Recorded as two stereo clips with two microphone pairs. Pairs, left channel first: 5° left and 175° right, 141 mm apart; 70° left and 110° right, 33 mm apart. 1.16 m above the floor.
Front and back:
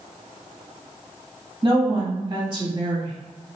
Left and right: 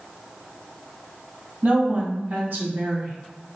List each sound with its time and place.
1.6 s a woman speaking: 125° right, 1.9 m